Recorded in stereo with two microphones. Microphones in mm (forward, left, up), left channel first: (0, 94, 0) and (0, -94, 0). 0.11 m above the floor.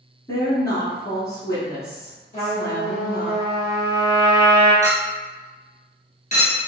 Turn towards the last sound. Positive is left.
turn(degrees=40)  # may be behind; listen again after turning